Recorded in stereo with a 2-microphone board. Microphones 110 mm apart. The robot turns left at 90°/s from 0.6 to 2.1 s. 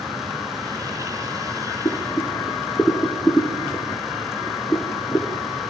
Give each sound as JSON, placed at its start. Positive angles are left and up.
{"t": 1.9, "sound": "boiling", "side_deg": 40, "distance_m": 2.0}